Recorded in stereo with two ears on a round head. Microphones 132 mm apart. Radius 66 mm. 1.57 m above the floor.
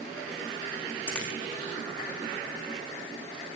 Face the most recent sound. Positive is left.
turn(degrees=5)  # may be behind; listen again after turning